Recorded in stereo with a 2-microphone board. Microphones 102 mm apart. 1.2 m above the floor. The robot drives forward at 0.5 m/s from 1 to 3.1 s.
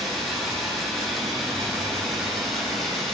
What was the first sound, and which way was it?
Running water, centre (ahead or behind).